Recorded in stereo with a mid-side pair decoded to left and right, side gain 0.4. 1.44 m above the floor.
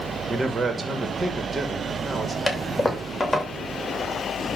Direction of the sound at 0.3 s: 40° right.